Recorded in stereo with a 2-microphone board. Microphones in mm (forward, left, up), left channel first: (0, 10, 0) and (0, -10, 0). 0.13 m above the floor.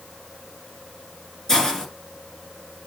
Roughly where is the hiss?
Left.